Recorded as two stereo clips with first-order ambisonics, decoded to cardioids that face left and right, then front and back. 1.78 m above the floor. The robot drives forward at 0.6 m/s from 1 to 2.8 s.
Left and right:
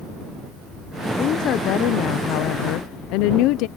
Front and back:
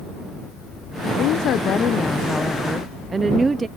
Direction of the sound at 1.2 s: 40° left.